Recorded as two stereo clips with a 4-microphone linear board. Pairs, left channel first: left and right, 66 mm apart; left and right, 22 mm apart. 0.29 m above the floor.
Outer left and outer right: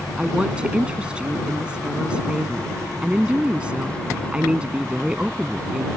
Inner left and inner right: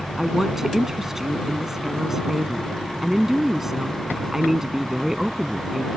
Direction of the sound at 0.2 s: 15° right (ahead or behind).